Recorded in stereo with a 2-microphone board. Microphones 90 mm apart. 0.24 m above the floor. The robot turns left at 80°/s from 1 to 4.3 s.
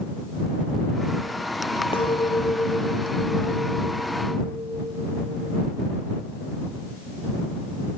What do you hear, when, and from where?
1.9 s a clink: 85° left; by 5.7 s 105° right